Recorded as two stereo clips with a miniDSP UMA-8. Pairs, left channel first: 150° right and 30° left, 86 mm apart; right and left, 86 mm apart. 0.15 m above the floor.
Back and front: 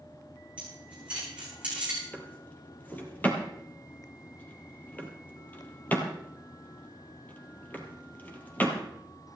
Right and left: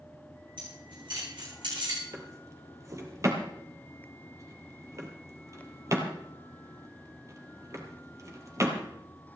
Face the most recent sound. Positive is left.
turn(degrees=140)